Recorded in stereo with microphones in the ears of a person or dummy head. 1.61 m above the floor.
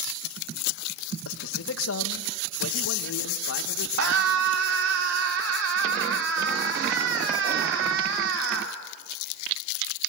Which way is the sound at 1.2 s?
80° left.